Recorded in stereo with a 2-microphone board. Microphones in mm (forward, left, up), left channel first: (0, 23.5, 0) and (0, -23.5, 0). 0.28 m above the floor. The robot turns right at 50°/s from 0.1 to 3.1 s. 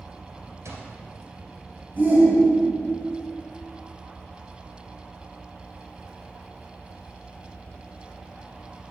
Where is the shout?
55° right, 1.9 m; by 3.0 s straight ahead, 1.9 m.